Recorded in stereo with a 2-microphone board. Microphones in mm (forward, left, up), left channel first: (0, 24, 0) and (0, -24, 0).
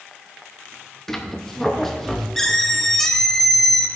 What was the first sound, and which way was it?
A squeak, 5° left (ahead or behind).